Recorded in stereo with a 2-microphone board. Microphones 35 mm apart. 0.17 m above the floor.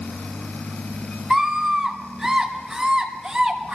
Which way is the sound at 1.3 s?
5° right (ahead or behind).